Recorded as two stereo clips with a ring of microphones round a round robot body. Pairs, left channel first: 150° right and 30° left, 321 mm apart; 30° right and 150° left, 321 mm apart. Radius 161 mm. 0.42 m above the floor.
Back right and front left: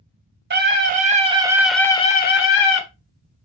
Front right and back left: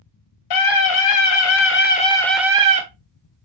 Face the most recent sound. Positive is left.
turn(degrees=-150)